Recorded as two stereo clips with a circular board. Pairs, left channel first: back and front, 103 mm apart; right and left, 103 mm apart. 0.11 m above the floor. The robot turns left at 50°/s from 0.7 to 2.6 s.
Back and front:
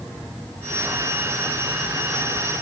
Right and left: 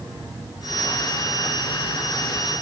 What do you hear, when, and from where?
Only background noise.